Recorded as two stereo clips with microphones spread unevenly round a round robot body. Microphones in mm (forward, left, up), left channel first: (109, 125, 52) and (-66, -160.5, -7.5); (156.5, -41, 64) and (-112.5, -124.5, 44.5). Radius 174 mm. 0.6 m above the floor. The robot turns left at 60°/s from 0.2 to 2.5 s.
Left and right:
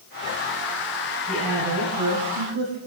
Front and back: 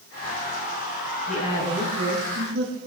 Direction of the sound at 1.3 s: 45° right.